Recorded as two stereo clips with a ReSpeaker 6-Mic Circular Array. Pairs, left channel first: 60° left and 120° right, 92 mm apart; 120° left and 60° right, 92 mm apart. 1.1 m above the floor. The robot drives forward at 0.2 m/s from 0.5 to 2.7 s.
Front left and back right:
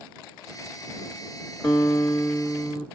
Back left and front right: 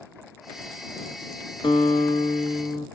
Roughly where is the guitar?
Behind left.